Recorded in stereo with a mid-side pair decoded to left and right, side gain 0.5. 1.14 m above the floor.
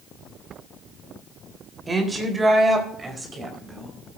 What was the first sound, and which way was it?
A woman speaking, 20° right.